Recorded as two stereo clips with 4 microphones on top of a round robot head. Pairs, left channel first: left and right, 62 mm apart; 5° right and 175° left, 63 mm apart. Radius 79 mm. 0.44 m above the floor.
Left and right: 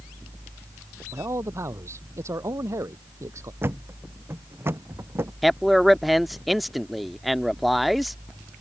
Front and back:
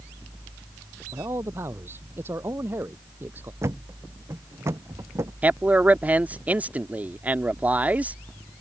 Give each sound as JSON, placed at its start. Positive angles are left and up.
{"t": 1.1, "sound": "a man speaking", "azimuth_deg": -130}
{"t": 3.6, "sound": "a thud", "azimuth_deg": -140}
{"t": 5.4, "sound": "a man speaking", "azimuth_deg": 180}